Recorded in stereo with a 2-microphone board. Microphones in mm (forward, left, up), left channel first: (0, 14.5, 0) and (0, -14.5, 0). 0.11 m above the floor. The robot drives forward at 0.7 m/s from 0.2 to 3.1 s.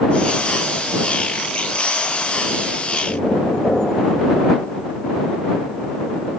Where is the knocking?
30° left (ahead or behind), 1.7 m.